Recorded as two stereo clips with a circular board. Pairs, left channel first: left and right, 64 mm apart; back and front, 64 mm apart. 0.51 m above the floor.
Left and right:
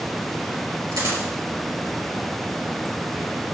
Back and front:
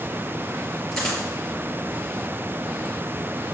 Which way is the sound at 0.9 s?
100° right.